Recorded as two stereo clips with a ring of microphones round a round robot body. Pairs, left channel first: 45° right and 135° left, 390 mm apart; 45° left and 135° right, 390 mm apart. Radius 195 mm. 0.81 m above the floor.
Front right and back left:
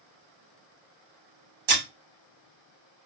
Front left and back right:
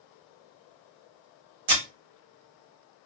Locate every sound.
1.7 s breaking glass: 165° left, 1.7 m